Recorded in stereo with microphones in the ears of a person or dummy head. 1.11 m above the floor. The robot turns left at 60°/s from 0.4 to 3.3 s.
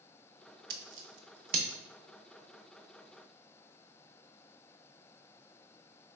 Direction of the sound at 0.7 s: 60° right (ahead or behind).